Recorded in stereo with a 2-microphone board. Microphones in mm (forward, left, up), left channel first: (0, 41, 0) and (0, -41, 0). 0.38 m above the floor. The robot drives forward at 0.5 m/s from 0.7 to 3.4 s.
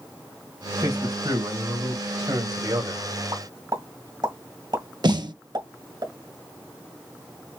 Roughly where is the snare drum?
Right.